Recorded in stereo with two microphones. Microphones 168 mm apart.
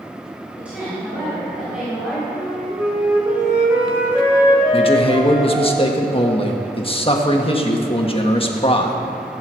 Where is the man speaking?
35° left (ahead or behind), 1.4 m.